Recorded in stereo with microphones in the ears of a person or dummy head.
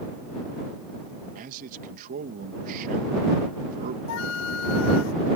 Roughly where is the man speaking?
Right.